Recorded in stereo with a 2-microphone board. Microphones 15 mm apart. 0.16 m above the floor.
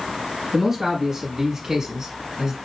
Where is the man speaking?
25° right (ahead or behind), 1.5 m; by 2.6 s 45° right (ahead or behind), 1.6 m.